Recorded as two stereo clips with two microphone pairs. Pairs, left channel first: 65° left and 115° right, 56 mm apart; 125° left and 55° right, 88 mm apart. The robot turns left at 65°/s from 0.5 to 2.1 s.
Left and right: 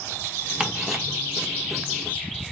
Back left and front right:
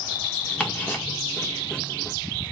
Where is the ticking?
175° right, 0.9 m; by 1.0 s 160° left, 0.9 m.